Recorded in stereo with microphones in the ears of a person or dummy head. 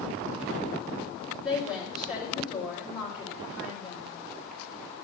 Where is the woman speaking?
10° right (ahead or behind), 3.5 m.